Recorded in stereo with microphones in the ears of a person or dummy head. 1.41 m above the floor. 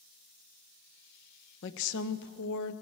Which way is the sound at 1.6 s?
65° left (ahead or behind).